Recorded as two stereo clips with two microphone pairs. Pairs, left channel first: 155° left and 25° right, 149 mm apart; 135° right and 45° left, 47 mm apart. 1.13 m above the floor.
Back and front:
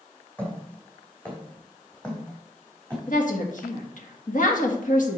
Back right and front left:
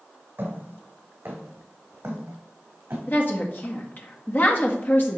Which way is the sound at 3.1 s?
175° right.